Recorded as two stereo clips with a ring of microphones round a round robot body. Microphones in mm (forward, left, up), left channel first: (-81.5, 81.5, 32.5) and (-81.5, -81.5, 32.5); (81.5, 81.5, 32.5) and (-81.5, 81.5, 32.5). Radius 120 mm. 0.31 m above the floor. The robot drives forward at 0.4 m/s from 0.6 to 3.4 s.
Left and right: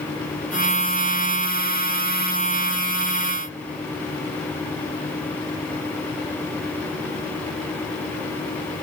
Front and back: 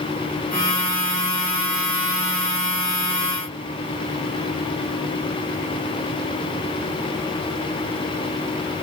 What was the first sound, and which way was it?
Only background noise.